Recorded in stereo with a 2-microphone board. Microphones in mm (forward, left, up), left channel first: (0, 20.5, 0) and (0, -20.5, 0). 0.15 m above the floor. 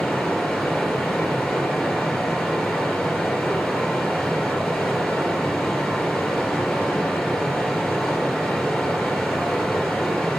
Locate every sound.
0.0 s running water: 10° left (ahead or behind), 3 m